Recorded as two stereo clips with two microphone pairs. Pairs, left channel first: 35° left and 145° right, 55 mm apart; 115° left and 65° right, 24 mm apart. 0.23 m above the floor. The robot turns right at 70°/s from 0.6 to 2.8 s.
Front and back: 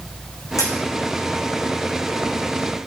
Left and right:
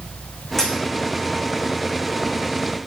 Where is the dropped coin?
40° left, 7 m; by 0.8 s 50° left, 7 m.